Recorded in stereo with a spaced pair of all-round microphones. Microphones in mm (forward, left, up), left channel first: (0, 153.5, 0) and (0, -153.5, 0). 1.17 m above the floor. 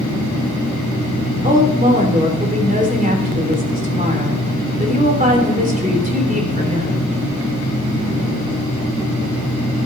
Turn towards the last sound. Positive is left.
turn(degrees=-25)  # may be behind; listen again after turning